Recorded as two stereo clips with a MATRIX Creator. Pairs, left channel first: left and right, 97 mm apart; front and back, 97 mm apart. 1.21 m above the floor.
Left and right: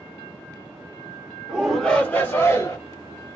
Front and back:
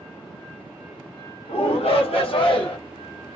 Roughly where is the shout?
Ahead.